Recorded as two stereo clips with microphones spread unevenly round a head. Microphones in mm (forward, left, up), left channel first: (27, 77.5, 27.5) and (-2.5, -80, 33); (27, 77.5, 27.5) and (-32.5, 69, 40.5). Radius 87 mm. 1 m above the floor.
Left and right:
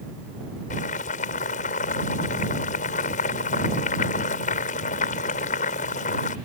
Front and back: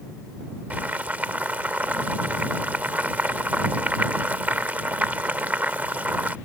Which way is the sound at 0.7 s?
125° left.